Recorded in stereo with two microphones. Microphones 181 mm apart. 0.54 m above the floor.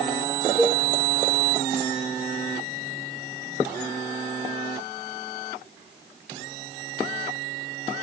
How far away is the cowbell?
About 0.9 m.